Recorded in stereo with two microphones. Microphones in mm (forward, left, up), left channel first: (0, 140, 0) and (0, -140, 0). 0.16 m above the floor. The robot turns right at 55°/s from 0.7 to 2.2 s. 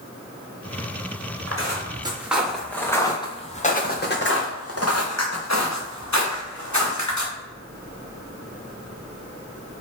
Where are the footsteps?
55° right (ahead or behind), 1.8 m; by 7.3 s 85° left, 2 m.